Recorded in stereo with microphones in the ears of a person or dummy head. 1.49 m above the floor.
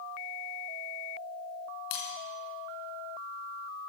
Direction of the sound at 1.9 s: 70° left (ahead or behind).